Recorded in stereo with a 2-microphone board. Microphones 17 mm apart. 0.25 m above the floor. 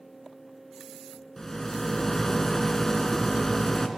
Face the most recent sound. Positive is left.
turn(degrees=30)  # may be behind; listen again after turning